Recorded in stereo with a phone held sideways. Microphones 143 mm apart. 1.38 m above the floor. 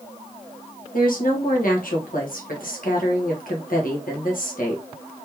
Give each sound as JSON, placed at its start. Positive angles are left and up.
{"t": 0.9, "sound": "a woman speaking", "side_deg": 75, "distance_m": 1.4}